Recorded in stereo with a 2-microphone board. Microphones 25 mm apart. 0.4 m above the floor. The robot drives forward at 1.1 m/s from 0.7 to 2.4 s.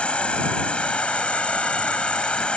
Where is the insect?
55° left (ahead or behind).